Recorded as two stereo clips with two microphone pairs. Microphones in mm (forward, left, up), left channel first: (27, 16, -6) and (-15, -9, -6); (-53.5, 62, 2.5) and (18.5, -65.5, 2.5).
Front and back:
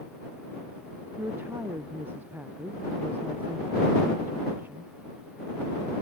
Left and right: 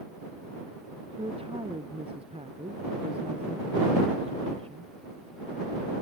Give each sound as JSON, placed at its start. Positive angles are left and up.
{"t": 1.2, "sound": "a woman speaking", "azimuth_deg": -105}